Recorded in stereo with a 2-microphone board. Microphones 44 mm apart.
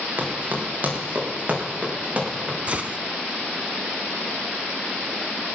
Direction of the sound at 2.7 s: 30° right (ahead or behind).